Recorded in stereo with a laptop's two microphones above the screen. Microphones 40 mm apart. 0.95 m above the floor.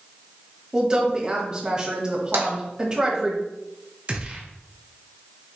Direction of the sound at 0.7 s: 20° right (ahead or behind).